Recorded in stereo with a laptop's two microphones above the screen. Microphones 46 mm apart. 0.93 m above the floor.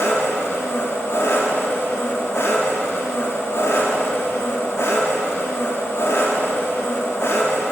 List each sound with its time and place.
0.0 s an engine running: 65° left (ahead or behind), 1.3 m